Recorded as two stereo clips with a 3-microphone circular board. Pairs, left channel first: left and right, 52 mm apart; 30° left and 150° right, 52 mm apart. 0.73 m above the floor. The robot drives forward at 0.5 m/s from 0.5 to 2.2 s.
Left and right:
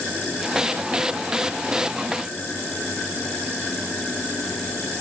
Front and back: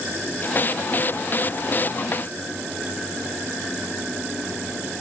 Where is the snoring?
I don't hear snoring.